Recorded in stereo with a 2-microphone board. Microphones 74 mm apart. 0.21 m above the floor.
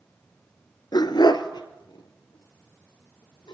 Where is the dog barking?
70° left (ahead or behind), 1.1 m; by 3.5 s 85° left, 4 m.